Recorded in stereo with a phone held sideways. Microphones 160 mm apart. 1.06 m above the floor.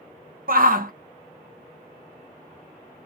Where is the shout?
60° right (ahead or behind), 0.8 m.